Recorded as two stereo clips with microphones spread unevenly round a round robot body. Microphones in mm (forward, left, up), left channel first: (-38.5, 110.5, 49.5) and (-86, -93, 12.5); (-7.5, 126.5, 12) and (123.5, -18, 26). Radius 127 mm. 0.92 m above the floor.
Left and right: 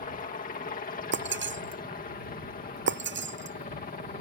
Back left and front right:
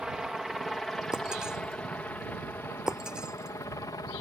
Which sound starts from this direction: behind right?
Breaking glass, at 1.1 s.